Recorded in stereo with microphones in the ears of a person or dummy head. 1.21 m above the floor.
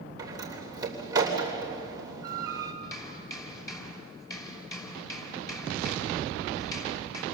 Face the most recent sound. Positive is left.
turn(degrees=15)  # may be behind; listen again after turning